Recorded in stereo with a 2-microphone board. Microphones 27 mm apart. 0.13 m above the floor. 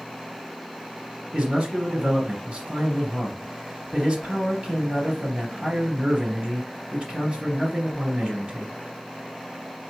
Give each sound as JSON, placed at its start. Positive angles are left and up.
{"t": 1.3, "sound": "a man speaking", "side_deg": -50, "distance_m": 2.5}